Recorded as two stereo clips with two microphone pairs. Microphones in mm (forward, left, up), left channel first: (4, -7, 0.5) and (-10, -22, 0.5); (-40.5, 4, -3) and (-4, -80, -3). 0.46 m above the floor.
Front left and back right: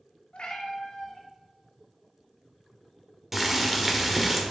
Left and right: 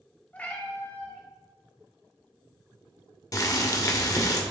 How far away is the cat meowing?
About 1.1 m.